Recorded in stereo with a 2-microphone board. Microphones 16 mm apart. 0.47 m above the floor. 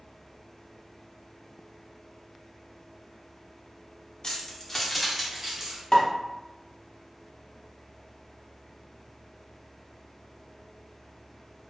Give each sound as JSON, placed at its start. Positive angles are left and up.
{"t": 4.2, "sound": "keys jangling", "side_deg": 35, "distance_m": 0.6}
{"t": 5.9, "sound": "a pop", "side_deg": 25, "distance_m": 0.7}